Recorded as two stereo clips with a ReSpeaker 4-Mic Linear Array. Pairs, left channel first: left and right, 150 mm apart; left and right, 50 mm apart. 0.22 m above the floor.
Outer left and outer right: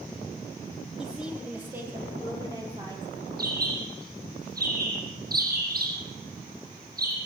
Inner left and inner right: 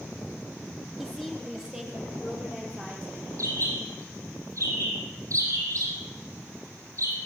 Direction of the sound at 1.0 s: Centre (ahead or behind).